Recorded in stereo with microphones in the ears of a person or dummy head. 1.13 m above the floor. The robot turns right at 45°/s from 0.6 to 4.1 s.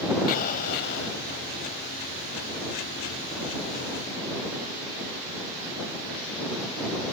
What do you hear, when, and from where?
0.3 s an explosion: 45° left (ahead or behind); by 1.2 s 70° left (ahead or behind)